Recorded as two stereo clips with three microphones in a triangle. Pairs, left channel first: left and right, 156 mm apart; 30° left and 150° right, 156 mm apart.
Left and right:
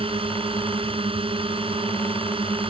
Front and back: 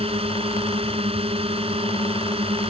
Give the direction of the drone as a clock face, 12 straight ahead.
4 o'clock.